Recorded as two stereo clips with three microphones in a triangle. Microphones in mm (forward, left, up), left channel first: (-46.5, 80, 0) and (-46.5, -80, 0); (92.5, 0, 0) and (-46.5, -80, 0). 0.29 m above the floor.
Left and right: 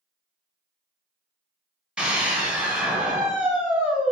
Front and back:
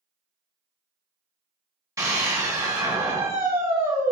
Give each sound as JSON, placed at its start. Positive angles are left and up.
{"t": 2.0, "sound": "a scream", "azimuth_deg": -160, "distance_m": 1.1}